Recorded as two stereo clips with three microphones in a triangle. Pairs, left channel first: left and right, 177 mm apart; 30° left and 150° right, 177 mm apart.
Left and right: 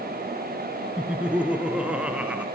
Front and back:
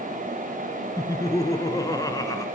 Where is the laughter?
15° right, 1.4 m.